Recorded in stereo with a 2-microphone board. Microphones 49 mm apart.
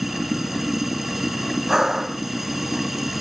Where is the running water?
5° right (ahead or behind).